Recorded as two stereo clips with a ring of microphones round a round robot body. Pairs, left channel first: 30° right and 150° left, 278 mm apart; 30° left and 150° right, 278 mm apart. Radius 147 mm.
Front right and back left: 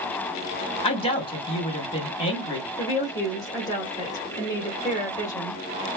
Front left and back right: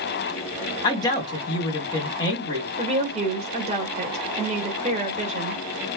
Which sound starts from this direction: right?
A woman speaking, at 2.8 s.